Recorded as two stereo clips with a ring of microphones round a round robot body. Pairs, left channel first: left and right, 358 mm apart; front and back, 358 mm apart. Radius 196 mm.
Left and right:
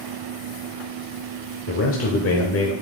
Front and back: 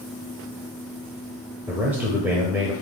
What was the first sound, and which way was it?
A man speaking, 100° left.